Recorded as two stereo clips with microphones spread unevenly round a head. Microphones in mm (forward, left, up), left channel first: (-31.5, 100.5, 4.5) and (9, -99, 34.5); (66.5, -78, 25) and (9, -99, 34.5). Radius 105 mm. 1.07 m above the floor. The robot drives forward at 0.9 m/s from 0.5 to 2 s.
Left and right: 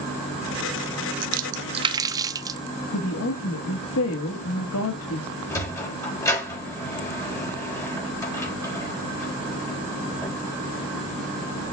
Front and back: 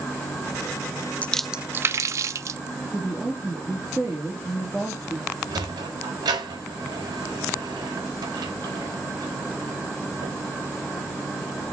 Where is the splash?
50° right, 0.5 m; by 2.6 s 145° right, 0.7 m.